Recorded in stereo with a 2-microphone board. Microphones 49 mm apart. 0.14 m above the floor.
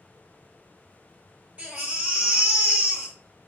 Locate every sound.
1.6 s a baby crying: 25° right (ahead or behind), 1.1 m